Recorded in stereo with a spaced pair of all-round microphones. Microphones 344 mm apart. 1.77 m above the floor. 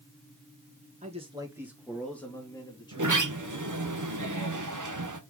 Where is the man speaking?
20° right (ahead or behind), 1.9 m; by 3.3 s 15° left (ahead or behind), 3.5 m.